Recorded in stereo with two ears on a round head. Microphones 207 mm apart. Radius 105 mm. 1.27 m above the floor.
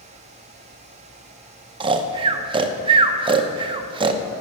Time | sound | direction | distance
1.8 | snoring | 20° right (ahead or behind) | 0.7 m